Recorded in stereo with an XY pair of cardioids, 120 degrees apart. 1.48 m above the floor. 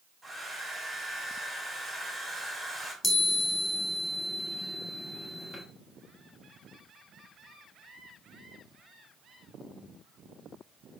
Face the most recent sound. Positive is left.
turn(degrees=25)